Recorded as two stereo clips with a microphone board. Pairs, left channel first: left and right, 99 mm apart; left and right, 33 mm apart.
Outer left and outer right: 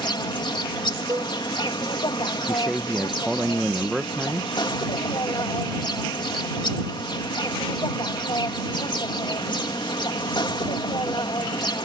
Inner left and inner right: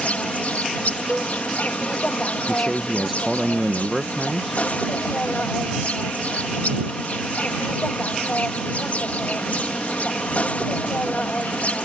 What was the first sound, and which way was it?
An insect, 55° left (ahead or behind).